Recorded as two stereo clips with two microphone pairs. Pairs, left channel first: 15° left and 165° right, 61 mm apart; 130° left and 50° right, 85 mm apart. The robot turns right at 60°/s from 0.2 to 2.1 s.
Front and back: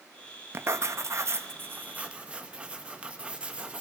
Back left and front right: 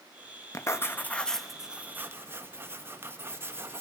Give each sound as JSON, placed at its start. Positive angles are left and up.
{"t": 0.5, "sound": "writing", "azimuth_deg": 165, "distance_m": 1.4}